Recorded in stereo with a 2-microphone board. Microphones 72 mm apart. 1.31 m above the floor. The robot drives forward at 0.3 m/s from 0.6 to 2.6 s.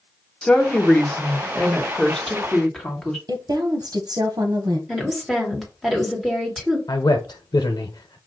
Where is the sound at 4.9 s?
Centre (ahead or behind), 1.6 m.